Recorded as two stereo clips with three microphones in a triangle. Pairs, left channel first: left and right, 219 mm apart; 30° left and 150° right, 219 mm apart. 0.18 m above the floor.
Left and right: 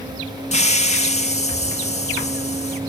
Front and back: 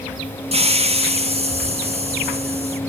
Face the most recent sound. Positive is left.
turn(degrees=150)